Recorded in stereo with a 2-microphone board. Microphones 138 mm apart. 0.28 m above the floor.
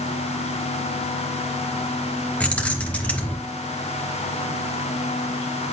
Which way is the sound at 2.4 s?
10° left (ahead or behind).